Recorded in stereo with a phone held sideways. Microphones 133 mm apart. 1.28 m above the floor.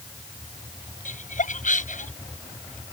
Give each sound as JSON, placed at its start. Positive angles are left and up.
{"t": 1.1, "sound": "laughter", "side_deg": 80}